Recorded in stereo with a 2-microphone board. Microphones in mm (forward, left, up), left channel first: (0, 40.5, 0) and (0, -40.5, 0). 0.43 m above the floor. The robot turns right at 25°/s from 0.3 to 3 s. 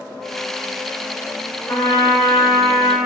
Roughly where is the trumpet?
Left.